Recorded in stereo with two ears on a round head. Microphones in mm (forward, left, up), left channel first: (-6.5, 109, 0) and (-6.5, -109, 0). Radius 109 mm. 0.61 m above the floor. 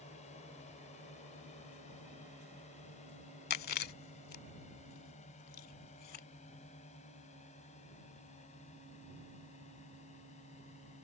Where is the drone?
30° left (ahead or behind).